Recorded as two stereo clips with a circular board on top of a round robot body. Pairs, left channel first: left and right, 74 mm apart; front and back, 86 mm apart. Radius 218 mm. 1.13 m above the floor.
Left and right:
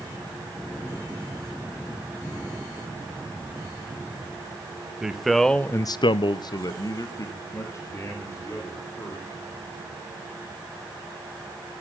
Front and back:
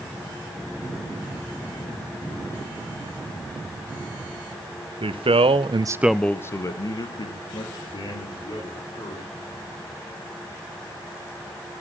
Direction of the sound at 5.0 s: 170° right.